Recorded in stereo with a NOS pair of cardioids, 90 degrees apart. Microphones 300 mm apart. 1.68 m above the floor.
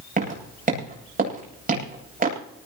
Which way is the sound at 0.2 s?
30° right.